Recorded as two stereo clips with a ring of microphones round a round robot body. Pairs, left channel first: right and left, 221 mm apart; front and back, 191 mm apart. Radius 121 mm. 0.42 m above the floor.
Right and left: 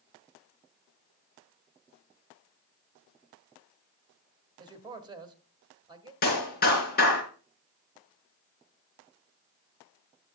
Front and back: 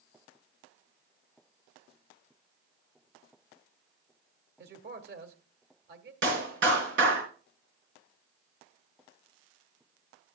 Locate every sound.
4.6 s a man speaking: 160° left, 1.6 m
6.2 s a clap: 140° right, 4.5 m